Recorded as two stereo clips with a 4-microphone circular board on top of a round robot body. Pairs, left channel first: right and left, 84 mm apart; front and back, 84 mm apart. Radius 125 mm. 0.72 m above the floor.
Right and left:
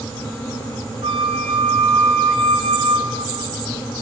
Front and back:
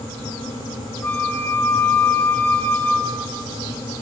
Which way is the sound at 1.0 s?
70° left.